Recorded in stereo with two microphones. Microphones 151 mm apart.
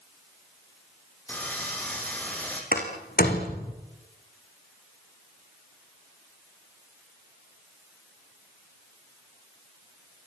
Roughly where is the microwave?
No microwave in this recording.